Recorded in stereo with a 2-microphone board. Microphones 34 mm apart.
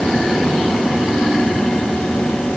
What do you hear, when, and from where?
Only background noise.